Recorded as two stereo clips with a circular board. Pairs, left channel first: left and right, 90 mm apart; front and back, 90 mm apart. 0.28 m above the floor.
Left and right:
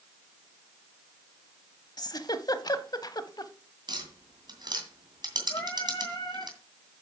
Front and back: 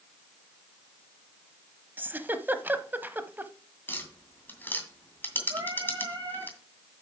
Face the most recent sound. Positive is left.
turn(degrees=140)